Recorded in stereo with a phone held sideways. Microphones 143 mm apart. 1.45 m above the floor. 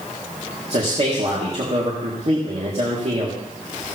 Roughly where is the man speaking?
Right.